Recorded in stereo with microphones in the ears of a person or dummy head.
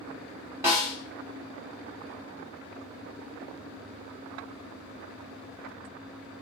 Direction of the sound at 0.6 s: 20° right (ahead or behind).